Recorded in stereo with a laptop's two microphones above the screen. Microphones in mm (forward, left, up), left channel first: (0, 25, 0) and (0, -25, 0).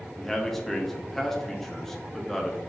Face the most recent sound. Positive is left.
turn(degrees=5)  # may be behind; listen again after turning